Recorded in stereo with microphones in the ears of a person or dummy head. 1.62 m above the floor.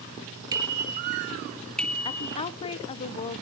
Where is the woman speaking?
35° left (ahead or behind), 0.7 m.